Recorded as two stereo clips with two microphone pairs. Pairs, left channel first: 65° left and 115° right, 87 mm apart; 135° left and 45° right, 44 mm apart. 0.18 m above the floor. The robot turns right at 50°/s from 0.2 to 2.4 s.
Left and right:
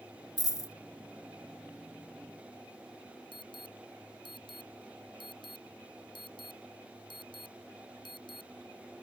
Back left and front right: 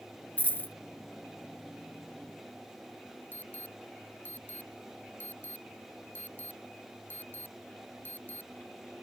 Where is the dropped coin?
100° left; by 0.7 s 120° left.